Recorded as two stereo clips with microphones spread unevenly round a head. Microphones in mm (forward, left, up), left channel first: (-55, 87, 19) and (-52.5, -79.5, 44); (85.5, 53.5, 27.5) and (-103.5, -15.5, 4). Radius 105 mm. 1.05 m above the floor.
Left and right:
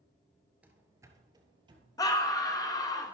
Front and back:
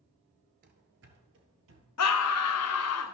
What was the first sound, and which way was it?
Running footsteps, 155° right.